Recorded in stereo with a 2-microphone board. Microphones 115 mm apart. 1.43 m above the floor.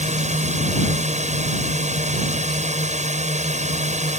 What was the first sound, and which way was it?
A drone, 80° right.